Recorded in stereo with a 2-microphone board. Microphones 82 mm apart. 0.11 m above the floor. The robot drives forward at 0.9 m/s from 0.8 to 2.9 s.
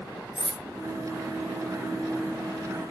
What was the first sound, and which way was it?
Cutlery clinking, 10° right (ahead or behind).